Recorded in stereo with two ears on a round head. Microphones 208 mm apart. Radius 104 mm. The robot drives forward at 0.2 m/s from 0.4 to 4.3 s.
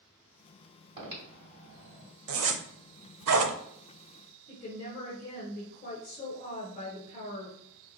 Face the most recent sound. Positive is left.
turn(degrees=25)  # may be behind; listen again after turning